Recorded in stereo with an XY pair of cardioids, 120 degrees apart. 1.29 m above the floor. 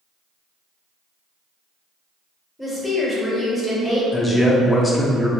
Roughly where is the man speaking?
Ahead.